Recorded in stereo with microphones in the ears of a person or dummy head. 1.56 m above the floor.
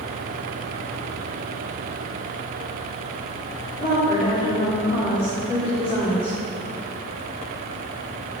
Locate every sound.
3.8 s a woman speaking: 30° left (ahead or behind), 4 m